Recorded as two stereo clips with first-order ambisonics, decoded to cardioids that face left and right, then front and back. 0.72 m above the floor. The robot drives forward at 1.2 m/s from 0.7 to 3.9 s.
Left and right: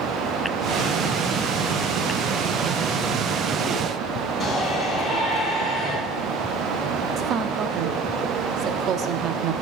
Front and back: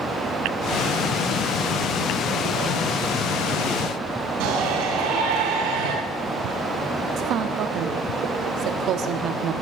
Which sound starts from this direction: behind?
A shout, at 4.4 s.